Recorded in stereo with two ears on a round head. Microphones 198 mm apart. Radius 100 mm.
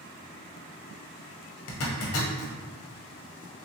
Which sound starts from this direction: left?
A zipper, at 1.7 s.